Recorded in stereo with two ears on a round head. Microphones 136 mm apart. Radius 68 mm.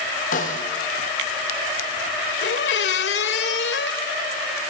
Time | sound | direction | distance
0.3 | a snare drum | 55° left (ahead or behind) | 6 m
2.4 | a squeak | 80° left | 1.8 m